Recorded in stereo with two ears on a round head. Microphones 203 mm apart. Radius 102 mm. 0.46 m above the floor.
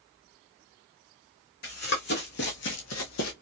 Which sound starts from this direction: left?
Running footsteps, at 1.6 s.